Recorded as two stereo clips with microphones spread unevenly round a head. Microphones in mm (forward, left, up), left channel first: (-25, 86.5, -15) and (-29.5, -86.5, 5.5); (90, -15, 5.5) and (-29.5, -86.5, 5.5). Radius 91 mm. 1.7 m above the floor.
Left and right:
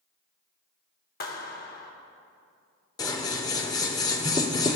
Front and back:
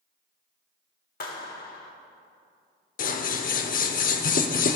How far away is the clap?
About 1.2 m.